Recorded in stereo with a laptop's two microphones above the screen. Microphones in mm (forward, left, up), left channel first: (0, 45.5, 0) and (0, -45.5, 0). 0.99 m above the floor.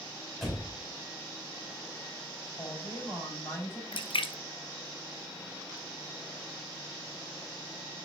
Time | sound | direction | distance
0.4 | a door slam | centre (ahead or behind) | 3 m
2.6 | a woman speaking | 30° left (ahead or behind) | 4 m
3.9 | a splash | 70° left (ahead or behind) | 0.7 m